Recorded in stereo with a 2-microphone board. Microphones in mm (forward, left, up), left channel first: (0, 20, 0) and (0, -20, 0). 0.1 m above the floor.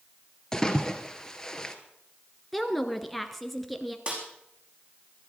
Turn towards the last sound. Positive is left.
turn(degrees=-30)  # may be behind; listen again after turning